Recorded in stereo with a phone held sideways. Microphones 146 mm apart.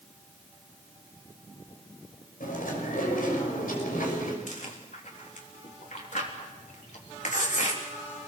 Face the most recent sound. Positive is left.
turn(degrees=65)  # may be behind; listen again after turning